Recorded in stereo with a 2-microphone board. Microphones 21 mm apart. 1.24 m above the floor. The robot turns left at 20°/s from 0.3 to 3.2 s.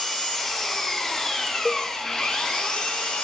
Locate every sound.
0.0 s an engine running: 165° right, 7 m; by 3.2 s 135° left, 7 m
1.6 s a cowbell: centre (ahead or behind), 0.5 m